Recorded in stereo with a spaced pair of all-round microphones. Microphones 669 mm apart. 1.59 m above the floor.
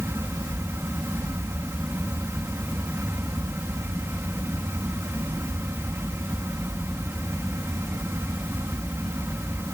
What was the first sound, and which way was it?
A fan, 5° right (ahead or behind).